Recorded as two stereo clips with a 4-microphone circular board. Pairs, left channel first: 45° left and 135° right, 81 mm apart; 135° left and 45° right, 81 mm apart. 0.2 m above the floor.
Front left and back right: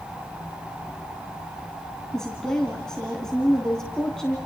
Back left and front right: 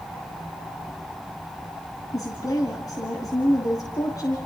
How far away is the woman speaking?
About 2.5 m.